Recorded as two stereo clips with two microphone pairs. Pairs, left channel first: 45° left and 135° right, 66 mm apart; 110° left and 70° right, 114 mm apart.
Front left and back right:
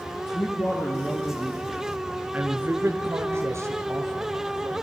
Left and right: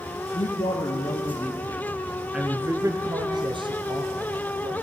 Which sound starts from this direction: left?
A man speaking, at 0.3 s.